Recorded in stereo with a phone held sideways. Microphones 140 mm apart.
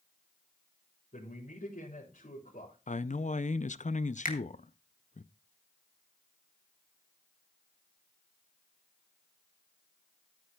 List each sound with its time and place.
1.1 s a man speaking: 75° left (ahead or behind), 4.5 m
2.9 s a man speaking: 60° left (ahead or behind), 0.5 m
4.2 s a finger snap: 85° left, 1.8 m